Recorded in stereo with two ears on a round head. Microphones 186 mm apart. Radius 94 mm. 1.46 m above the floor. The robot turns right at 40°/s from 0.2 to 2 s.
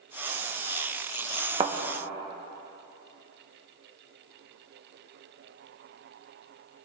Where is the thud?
25° right (ahead or behind), 1.0 m; by 1.7 s 30° right (ahead or behind), 1.0 m.